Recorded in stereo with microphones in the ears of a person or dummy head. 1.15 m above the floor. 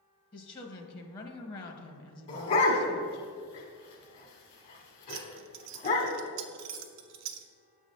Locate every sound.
0.3 s a woman speaking: 25° left (ahead or behind), 0.8 m
2.3 s a dog barking: 40° left (ahead or behind), 1.2 m
5.1 s keys jangling: 85° right, 0.6 m